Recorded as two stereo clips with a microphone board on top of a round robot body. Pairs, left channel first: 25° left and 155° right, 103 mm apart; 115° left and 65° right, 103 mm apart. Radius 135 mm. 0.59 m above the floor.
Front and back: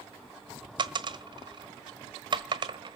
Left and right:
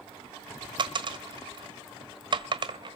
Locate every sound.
0.8 s a dropped coin: 110° right, 1.4 m